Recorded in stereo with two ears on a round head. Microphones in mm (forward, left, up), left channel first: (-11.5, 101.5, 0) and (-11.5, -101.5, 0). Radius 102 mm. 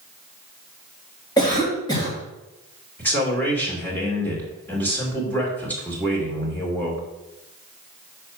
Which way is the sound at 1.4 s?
15° left (ahead or behind).